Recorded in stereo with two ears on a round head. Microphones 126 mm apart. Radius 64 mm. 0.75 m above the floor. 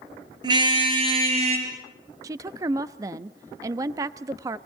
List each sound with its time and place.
0.4 s a car horn: 30° right (ahead or behind), 6 m; by 1.7 s 50° right (ahead or behind), 6.5 m
2.2 s a woman speaking: 25° right (ahead or behind), 0.7 m